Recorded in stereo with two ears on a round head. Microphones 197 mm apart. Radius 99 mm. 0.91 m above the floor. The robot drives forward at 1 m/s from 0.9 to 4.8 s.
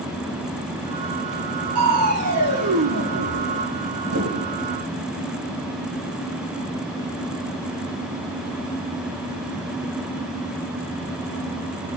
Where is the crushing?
80° right, 7 m; by 4.6 s 75° right (ahead or behind), 7 m.